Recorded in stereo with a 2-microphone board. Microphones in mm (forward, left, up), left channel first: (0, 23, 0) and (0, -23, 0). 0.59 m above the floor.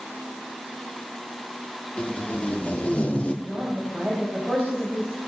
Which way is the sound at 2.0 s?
25° left (ahead or behind).